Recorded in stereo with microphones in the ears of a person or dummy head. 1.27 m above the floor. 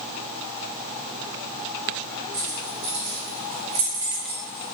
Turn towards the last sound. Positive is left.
turn(degrees=25)  # may be behind; listen again after turning